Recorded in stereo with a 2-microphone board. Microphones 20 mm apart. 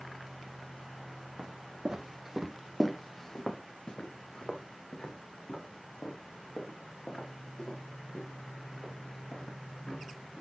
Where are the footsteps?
45° right (ahead or behind), 1.5 m; by 10.4 s 85° left, 6 m.